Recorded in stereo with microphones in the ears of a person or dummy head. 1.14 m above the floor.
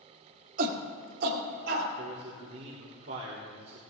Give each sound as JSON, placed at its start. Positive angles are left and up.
{"t": 0.6, "sound": "a shout", "side_deg": -45, "distance_m": 2.0}
{"t": 2.0, "sound": "a man speaking", "side_deg": -60, "distance_m": 1.6}